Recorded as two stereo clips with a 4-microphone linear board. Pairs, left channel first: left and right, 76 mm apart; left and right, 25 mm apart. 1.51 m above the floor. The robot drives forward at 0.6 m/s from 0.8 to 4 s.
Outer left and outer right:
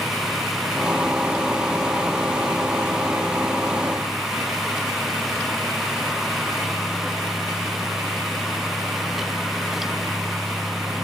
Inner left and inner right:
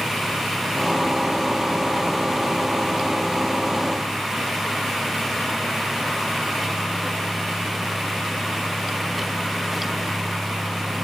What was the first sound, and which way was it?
Only background noise.